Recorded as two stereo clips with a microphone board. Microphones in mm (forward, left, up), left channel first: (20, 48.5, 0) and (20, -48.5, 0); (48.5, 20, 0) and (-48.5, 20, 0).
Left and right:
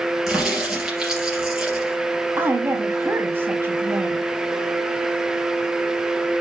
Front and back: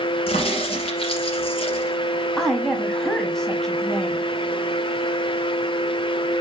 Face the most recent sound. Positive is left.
turn(degrees=-75)